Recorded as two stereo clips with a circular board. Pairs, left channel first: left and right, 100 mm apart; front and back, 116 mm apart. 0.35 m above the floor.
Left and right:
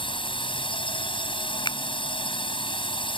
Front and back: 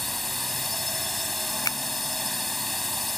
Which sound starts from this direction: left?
A drone, at 0.0 s.